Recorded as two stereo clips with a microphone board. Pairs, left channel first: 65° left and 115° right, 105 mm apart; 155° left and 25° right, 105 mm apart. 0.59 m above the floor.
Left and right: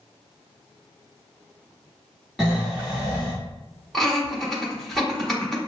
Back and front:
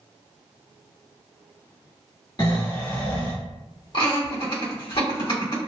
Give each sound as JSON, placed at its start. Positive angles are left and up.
{"t": 2.4, "sound": "snoring", "azimuth_deg": 160, "distance_m": 1.7}
{"t": 3.9, "sound": "laughter", "azimuth_deg": 150, "distance_m": 1.6}